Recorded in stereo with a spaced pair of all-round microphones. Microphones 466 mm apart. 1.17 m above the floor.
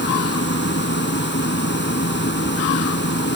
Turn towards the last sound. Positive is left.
turn(degrees=20)  # may be behind; listen again after turning